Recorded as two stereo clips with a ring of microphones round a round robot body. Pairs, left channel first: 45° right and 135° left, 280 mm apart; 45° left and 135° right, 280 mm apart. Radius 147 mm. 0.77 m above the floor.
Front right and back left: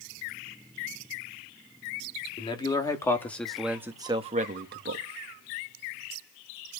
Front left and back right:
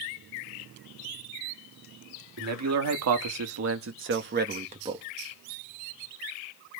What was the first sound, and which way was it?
A man speaking, 115° right.